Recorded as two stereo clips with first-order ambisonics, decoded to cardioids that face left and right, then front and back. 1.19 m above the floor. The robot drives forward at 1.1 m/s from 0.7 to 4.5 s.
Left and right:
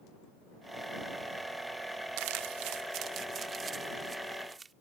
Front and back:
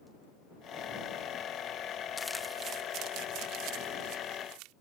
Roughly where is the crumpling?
Right.